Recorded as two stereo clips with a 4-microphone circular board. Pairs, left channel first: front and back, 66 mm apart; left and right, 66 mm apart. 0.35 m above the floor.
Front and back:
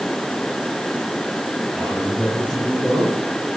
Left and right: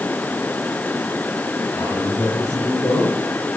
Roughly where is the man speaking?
Left.